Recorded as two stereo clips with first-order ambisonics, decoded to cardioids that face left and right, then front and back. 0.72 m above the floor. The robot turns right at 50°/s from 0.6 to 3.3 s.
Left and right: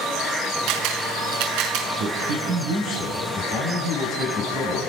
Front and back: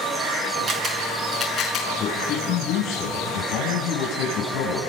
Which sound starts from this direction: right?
A man speaking, at 2.0 s.